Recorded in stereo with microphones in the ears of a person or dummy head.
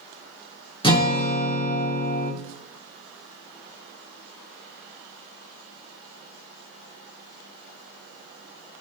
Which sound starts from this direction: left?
A guitar, at 0.8 s.